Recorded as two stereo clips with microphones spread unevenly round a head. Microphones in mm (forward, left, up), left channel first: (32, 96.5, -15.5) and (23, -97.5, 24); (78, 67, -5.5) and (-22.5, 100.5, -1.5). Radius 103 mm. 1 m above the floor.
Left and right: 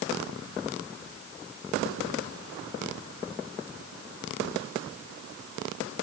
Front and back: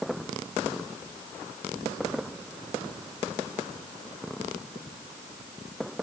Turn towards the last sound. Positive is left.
No sound to turn to.